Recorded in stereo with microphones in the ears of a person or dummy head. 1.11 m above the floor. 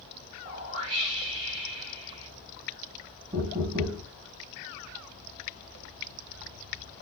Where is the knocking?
20° right (ahead or behind), 0.8 m.